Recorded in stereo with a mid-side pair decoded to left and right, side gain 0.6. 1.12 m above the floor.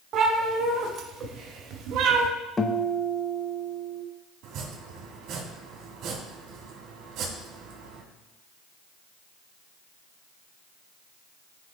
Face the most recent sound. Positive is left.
turn(degrees=-60)